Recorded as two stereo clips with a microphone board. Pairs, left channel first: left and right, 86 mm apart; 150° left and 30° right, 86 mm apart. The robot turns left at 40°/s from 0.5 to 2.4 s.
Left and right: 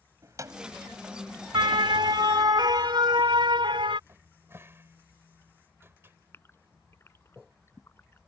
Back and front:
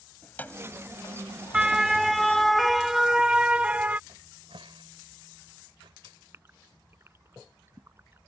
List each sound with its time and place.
0.2 s keys jangling: 140° right; by 2.5 s 145° left
1.5 s a siren: 110° right; by 4.0 s 105° right
4.1 s a cupboard door: 30° right
6.3 s a gasp: 30° left